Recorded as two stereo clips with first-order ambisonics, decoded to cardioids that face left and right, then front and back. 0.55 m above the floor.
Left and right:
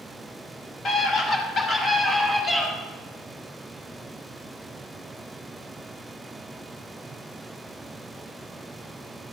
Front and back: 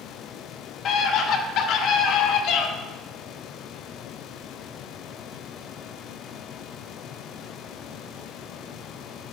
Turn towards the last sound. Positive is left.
turn(degrees=0)